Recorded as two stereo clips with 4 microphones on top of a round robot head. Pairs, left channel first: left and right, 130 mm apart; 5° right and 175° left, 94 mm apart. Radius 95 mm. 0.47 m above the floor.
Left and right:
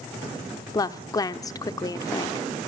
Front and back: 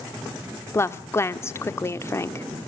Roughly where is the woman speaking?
Ahead left.